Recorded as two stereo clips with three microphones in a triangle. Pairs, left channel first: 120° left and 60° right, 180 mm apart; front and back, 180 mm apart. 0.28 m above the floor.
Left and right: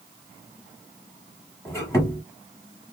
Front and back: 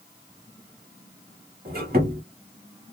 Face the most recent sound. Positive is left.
turn(degrees=-170)